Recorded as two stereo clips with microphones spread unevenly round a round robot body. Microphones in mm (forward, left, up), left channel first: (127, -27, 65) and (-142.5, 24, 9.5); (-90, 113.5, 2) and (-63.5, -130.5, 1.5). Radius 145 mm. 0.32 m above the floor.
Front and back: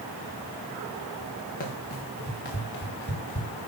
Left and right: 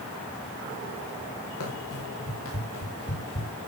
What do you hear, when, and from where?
1.6 s running footsteps: 50° left, 6 m; by 3.5 s 35° left, 5.5 m